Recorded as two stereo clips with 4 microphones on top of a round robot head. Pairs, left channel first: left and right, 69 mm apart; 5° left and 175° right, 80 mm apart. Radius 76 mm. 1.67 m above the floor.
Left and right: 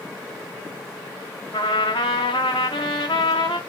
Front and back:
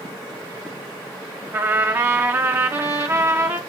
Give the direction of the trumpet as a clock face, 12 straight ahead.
8 o'clock.